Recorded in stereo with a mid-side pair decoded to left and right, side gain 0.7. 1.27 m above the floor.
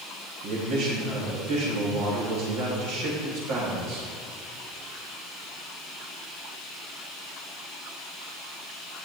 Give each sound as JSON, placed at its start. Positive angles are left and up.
{"t": 0.4, "sound": "a man speaking", "azimuth_deg": -65, "distance_m": 5.5}